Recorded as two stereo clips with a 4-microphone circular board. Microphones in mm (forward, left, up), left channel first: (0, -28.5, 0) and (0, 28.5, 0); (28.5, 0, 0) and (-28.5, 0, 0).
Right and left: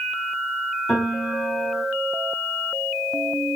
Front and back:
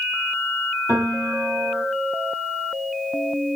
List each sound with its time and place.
0.9 s a piano: 165° right, 2.5 m